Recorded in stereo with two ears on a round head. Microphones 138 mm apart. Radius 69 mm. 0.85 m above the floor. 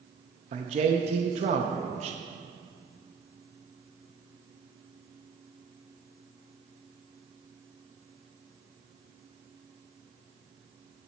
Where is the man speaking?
45° right (ahead or behind), 0.5 m.